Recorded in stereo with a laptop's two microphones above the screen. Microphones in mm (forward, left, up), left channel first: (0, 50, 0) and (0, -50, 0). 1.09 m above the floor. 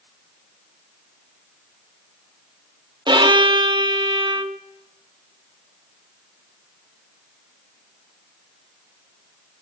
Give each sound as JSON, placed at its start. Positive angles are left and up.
{"t": 3.1, "sound": "a violin", "side_deg": -50, "distance_m": 0.7}